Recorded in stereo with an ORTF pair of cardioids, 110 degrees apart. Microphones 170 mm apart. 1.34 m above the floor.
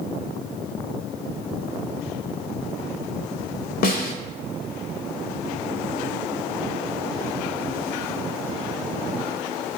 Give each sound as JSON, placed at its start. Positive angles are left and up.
{"t": 3.8, "sound": "a snare drum", "azimuth_deg": 60, "distance_m": 0.5}